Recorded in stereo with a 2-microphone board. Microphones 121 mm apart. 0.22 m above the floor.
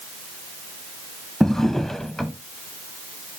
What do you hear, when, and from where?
1.4 s a drawer: 5° left (ahead or behind), 0.5 m